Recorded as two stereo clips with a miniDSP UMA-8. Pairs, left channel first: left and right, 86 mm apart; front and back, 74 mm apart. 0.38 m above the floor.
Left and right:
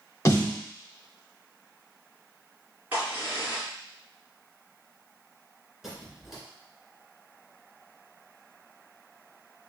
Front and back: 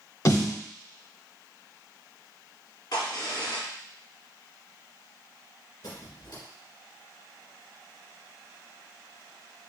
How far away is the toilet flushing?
I don't hear a toilet flushing.